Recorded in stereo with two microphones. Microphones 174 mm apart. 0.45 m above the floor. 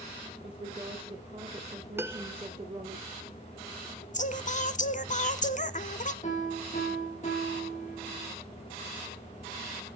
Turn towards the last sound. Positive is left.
turn(degrees=45)  # may be behind; listen again after turning